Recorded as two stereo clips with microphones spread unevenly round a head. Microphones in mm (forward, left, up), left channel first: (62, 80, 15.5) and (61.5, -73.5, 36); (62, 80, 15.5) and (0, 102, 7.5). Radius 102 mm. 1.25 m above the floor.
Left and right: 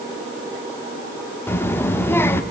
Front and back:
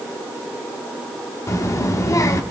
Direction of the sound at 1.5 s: 10° left.